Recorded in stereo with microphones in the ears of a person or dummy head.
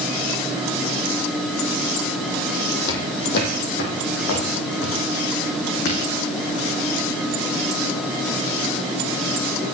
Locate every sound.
2.9 s footsteps: 55° left (ahead or behind), 2.5 m; by 6.1 s 70° left (ahead or behind), 4.5 m